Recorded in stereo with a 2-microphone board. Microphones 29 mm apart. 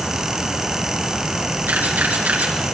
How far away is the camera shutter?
About 5.5 m.